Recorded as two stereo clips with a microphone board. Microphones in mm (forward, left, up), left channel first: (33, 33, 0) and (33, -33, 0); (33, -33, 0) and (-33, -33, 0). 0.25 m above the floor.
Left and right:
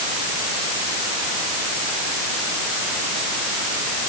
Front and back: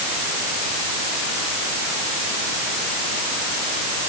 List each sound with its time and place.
Only background noise.